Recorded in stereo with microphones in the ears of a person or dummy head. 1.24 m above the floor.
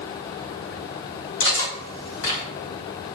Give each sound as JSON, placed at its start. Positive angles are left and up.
{"t": 1.4, "sound": "cutlery clinking", "side_deg": 60, "distance_m": 1.2}